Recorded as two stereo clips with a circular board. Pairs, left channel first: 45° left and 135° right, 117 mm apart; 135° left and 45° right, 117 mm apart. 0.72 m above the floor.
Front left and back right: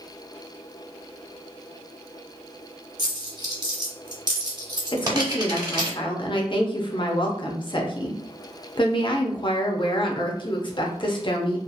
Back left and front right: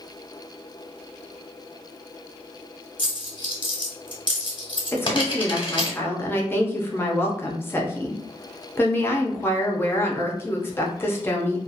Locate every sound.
3.0 s a dropped coin: 175° left, 0.9 m
4.9 s a woman speaking: 70° left, 0.6 m